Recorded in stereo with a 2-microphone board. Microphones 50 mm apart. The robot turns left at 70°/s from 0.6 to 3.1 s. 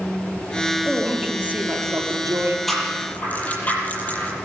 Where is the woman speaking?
10° left, 6 m; by 2.6 s 110° right, 6 m.